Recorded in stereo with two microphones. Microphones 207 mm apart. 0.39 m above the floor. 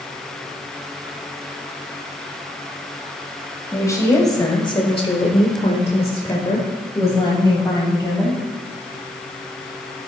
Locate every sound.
3.7 s a woman speaking: 15° left (ahead or behind), 2 m; by 8.4 s 10° left (ahead or behind), 3 m